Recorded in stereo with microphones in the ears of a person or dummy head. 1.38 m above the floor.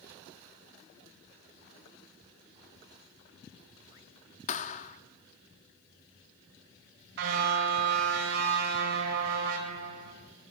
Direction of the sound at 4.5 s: 45° left (ahead or behind).